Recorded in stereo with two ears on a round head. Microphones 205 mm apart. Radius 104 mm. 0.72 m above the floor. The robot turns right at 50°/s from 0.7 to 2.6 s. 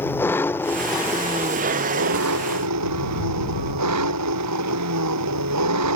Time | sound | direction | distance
0.0 | an engine running | 170° left | ?